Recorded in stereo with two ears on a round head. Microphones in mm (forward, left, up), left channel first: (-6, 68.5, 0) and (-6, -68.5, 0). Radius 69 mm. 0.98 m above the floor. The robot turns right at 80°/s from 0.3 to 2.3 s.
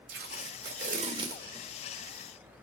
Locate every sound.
0.1 s tape being pulled: 75° right (ahead or behind), 1.9 m; by 2.6 s 55° left (ahead or behind), 1.9 m